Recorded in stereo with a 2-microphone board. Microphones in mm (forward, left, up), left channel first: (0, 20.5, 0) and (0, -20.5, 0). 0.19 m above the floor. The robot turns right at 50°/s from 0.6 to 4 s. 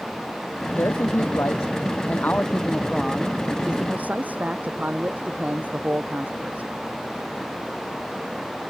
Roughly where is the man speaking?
Ahead left.